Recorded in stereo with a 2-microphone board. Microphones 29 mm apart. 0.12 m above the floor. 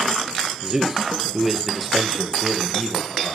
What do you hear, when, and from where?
0.6 s a man speaking: 20° right (ahead or behind), 2.5 m; by 3.4 s 25° left (ahead or behind), 3 m